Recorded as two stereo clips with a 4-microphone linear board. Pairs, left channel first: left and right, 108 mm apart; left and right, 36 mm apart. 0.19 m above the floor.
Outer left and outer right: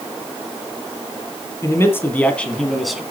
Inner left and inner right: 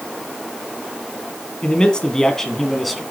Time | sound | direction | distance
1.6 | a man speaking | 25° left (ahead or behind) | 2.0 m